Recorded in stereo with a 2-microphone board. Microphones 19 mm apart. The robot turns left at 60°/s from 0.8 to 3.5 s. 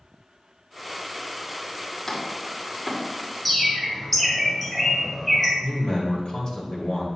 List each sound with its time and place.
2.1 s chopping: 20° left (ahead or behind), 1.4 m; by 3.0 s 5° right (ahead or behind), 1.4 m
3.5 s a bird: 5° left (ahead or behind), 1.8 m
5.6 s a man speaking: 50° left (ahead or behind), 2 m